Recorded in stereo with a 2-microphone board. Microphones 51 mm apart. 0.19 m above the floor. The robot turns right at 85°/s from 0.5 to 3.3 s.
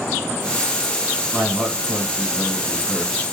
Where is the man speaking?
20° right (ahead or behind), 1.2 m; by 3.2 s 25° left (ahead or behind), 1.2 m.